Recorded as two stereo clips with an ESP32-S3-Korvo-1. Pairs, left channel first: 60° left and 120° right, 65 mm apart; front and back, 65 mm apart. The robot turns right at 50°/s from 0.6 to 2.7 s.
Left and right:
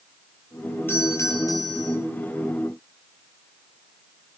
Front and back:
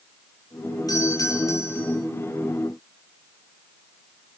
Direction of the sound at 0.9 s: 5° left.